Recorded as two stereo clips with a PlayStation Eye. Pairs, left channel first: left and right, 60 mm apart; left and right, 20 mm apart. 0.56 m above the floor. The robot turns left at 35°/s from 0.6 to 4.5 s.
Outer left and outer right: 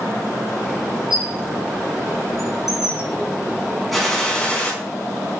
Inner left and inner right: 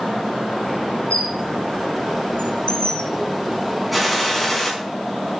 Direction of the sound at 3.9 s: Centre (ahead or behind).